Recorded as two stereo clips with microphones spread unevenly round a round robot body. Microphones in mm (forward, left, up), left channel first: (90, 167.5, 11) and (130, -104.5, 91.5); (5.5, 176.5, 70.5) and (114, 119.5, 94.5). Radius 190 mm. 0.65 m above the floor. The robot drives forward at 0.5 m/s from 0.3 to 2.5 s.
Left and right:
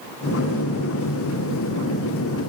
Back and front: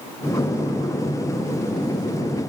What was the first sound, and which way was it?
Only background noise.